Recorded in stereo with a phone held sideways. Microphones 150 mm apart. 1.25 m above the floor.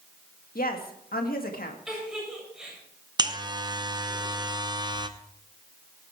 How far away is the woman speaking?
About 1.9 m.